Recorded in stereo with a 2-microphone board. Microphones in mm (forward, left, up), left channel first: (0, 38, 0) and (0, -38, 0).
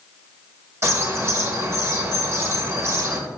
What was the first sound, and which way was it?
A bird, 40° right (ahead or behind).